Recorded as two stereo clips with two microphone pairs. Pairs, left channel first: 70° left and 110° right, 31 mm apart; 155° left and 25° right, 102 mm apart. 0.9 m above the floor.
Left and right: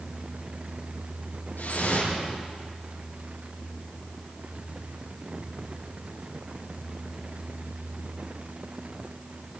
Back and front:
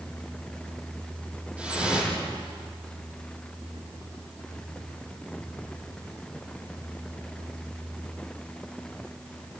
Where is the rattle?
I don't hear a rattle.